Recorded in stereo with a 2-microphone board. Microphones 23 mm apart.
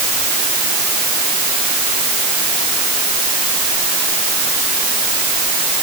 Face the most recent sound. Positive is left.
No sound to turn to.